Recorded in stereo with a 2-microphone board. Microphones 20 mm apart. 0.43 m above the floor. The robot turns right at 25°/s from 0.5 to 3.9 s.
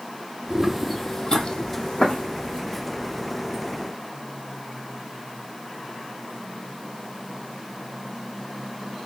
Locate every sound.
0.5 s footsteps: 35° right (ahead or behind), 0.8 m; by 2.6 s 65° left (ahead or behind), 1.8 m